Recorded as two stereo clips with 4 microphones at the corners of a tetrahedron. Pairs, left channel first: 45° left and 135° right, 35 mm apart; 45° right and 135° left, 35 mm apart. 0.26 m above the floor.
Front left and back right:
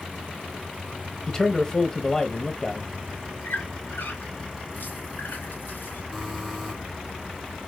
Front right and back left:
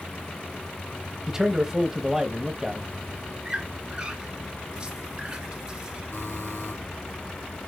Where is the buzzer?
55° right, 2.5 m.